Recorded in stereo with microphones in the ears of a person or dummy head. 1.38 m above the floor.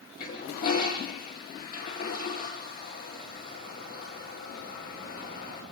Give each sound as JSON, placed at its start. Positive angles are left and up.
{"t": 0.2, "sound": "a toilet flushing", "side_deg": 55, "distance_m": 7.0}